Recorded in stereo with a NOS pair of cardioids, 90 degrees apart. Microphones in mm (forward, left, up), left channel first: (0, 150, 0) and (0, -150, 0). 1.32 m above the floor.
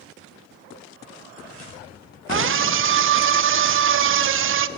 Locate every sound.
2.3 s a scream: 45° right, 0.8 m